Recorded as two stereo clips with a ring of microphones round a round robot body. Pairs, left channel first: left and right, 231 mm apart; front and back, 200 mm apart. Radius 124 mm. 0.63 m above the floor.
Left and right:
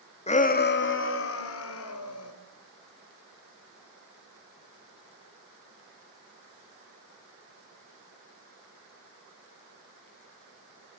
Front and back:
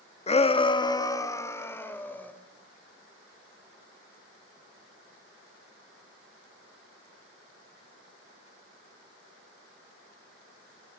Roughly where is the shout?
Ahead left.